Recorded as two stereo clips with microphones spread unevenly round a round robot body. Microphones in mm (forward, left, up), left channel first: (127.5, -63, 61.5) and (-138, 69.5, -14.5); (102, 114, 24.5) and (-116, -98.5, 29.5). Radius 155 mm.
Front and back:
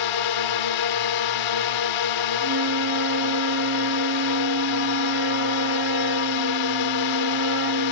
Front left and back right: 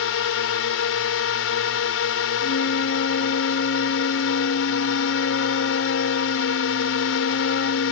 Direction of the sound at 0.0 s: 5° right.